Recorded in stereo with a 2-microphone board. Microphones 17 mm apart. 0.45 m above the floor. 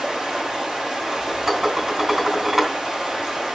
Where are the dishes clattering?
20° right (ahead or behind), 2.5 m.